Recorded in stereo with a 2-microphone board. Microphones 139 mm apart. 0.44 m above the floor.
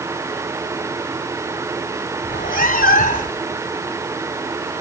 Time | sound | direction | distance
2.2 | a cat meowing | 85° left | 1.5 m